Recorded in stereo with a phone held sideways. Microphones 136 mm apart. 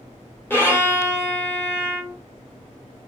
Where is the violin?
15° left (ahead or behind), 1.1 m.